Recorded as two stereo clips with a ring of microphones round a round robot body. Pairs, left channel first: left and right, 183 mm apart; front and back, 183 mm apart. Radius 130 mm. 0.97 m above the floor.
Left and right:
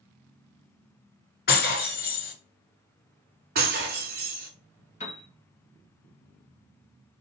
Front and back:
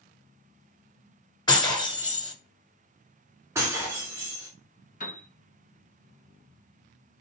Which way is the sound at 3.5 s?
105° right.